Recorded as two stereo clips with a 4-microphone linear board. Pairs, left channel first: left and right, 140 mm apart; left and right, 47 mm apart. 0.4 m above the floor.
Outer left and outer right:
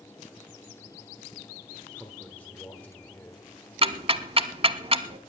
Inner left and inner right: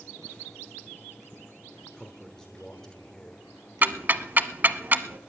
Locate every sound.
1.9 s a man speaking: 10° left (ahead or behind), 1.5 m
3.8 s ticking: 40° right (ahead or behind), 0.7 m